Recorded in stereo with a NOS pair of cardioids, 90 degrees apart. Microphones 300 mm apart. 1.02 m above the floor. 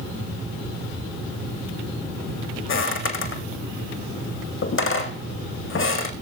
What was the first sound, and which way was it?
Footsteps, 45° left.